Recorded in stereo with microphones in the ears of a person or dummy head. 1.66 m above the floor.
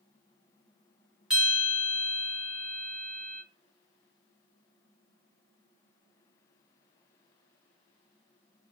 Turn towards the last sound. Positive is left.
turn(degrees=-5)  # may be behind; listen again after turning